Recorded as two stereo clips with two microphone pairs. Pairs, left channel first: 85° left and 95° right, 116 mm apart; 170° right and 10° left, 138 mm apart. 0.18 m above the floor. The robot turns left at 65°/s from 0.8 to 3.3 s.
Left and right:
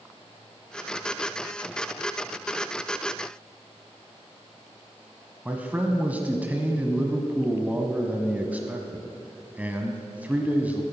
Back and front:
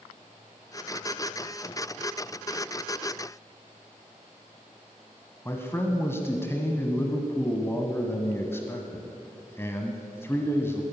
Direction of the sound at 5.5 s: 145° right.